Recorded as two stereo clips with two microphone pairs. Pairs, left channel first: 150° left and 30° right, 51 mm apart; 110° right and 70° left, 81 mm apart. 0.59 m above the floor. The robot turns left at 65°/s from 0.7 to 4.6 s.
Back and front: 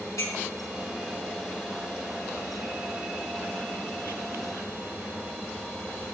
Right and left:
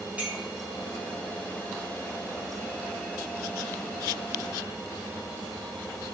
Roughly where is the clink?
Behind left.